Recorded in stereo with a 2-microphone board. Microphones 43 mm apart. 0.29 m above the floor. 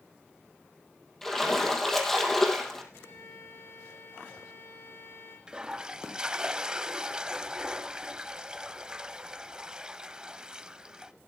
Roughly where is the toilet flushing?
Centre.